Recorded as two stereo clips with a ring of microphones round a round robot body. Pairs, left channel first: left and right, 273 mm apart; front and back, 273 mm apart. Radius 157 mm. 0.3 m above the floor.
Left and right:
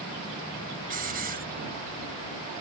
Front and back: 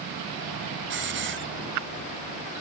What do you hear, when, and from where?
0.9 s a hiss: 145° right